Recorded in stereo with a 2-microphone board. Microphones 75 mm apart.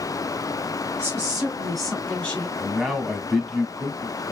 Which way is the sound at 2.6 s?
Centre (ahead or behind).